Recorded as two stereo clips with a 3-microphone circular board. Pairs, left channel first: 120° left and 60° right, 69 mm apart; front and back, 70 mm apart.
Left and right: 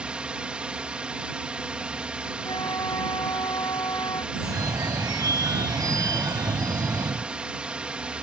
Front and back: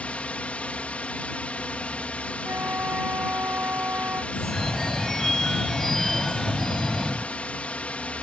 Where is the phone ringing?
85° right.